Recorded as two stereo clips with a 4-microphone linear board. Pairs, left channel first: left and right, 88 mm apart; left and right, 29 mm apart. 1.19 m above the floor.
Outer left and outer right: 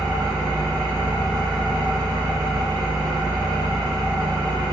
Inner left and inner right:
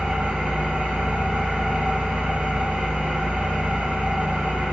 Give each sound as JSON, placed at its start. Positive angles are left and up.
{"t": 0.0, "sound": "an engine running", "side_deg": -55, "distance_m": 1.9}